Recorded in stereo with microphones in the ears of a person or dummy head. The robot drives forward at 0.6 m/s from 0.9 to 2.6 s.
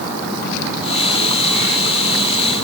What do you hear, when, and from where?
Only background noise.